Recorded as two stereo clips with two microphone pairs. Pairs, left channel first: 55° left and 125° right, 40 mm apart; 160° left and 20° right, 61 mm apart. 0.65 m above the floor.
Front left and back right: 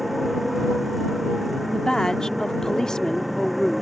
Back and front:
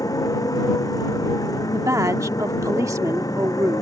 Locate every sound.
0.0 s a motorcycle: 150° left
1.7 s a woman speaking: 15° right